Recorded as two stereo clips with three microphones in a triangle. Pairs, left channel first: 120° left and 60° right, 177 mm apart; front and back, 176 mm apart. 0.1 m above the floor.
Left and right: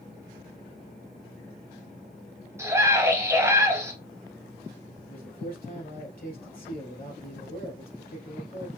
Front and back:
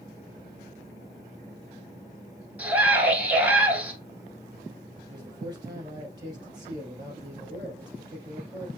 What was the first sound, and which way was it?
A scream, 110° right.